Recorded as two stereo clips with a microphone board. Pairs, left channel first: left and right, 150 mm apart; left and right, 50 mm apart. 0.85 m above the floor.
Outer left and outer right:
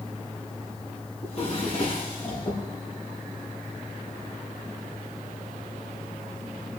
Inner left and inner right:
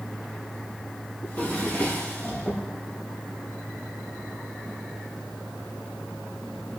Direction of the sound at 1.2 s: 45° left (ahead or behind).